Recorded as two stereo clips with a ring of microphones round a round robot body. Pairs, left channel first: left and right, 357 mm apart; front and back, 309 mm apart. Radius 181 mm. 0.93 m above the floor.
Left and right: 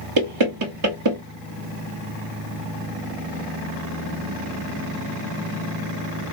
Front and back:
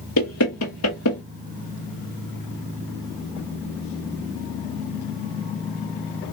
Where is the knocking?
50° right, 1.2 m.